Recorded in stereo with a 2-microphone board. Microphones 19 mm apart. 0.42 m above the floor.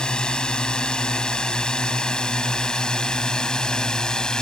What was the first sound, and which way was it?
A drone, 50° left (ahead or behind).